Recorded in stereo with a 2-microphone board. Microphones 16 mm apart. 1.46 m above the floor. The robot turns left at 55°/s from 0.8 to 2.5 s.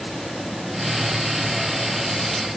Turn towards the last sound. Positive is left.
No sound to turn to.